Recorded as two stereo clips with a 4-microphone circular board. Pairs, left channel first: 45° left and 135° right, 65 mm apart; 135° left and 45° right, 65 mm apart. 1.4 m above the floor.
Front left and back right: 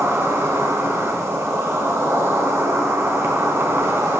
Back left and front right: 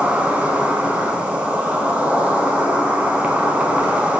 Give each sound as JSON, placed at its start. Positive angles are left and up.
{"t": 0.0, "sound": "an insect", "azimuth_deg": -105, "distance_m": 1.4}